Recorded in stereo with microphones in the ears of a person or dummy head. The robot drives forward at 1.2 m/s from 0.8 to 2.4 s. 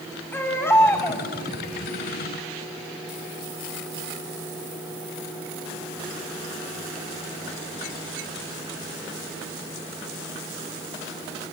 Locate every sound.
0.3 s a baby crying: 15° left (ahead or behind), 3.5 m